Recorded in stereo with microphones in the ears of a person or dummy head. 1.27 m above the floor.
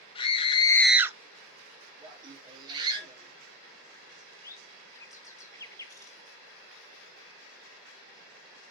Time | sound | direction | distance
0.1 | a scream | 30° left (ahead or behind) | 1.1 m
2.0 | laughter | 30° right (ahead or behind) | 3 m
4.1 | a bird | 15° left (ahead or behind) | 0.7 m